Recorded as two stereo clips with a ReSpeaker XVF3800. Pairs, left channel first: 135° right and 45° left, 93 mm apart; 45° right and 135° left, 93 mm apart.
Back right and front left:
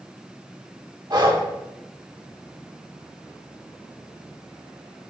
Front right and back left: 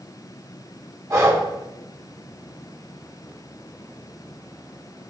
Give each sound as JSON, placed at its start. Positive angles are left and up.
{"t": 1.1, "sound": "breathing", "azimuth_deg": 80, "distance_m": 1.5}